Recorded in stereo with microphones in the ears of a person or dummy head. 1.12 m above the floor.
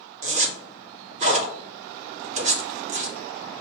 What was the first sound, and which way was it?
A zipper, 40° right (ahead or behind).